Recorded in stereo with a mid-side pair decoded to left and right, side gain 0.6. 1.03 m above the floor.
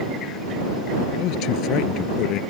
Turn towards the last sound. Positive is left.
turn(degrees=65)